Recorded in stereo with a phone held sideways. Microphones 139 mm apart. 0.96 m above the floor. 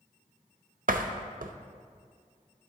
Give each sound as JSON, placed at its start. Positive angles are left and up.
{"t": 0.9, "sound": "a door slam", "side_deg": -80, "distance_m": 0.6}